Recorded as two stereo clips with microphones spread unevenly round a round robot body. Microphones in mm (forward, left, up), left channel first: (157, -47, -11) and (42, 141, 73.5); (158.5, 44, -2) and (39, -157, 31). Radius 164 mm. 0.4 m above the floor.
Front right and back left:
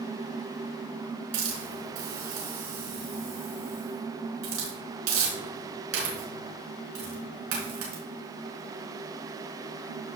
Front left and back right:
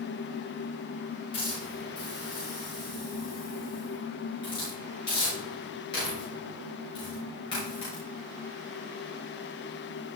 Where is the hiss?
135° left, 5 m.